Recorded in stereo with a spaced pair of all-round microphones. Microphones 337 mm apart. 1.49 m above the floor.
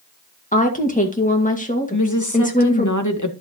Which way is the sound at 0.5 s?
20° left (ahead or behind).